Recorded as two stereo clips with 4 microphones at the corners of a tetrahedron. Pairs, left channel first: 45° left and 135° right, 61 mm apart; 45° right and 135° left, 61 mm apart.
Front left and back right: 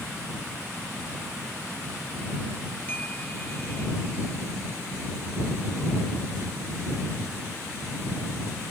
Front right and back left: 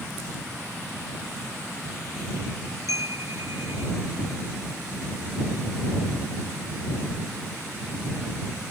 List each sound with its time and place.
2.9 s a chime: 110° left